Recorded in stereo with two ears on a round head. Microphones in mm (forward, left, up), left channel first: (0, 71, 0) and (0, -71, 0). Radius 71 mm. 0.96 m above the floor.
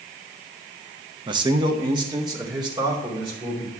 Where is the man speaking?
30° right (ahead or behind), 0.8 m; by 3.7 s 25° right (ahead or behind), 4 m.